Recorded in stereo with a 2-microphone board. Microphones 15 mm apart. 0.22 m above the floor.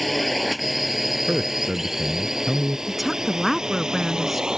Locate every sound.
0.0 s a drone: 5° left (ahead or behind); by 4.6 s 50° right (ahead or behind)
1.3 s a man speaking: 60° right (ahead or behind)
2.9 s a woman speaking: 5° right (ahead or behind)